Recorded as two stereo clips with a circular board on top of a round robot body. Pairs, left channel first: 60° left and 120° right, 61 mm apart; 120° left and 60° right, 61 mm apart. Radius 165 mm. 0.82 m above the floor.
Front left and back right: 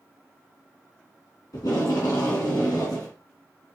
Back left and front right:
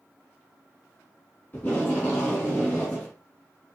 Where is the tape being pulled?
55° left, 2.5 m.